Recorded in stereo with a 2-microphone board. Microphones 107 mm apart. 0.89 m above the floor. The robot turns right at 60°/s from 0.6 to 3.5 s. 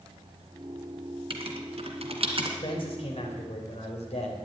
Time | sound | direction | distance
1.3 | writing | 55° right (ahead or behind) | 2 m
2.6 | a man speaking | 45° left | 4 m